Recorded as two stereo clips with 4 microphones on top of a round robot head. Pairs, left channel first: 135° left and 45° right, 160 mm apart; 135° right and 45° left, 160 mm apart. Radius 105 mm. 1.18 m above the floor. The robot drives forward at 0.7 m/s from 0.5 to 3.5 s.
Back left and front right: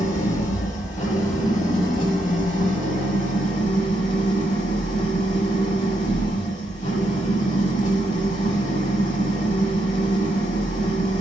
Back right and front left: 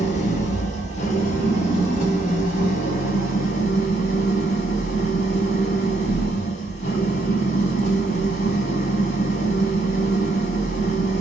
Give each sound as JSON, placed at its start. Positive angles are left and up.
{"t": 0.0, "sound": "an engine running", "azimuth_deg": 180, "distance_m": 4.5}